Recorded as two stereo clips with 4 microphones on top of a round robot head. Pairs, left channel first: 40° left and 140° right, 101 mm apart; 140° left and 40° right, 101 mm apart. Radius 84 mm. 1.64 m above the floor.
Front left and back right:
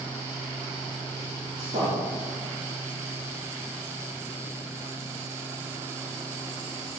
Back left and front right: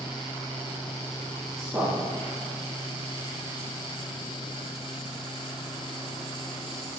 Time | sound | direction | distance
1.6 | a man speaking | 125° right | 4 m